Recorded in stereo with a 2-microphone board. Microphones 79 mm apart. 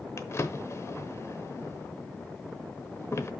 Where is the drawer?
35° left (ahead or behind), 0.9 m.